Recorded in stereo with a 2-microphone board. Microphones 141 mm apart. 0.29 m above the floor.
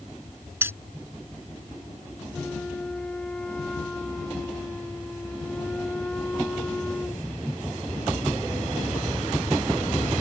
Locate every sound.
0.6 s keys jangling: 15° right (ahead or behind)
2.3 s a flute: 5° left (ahead or behind)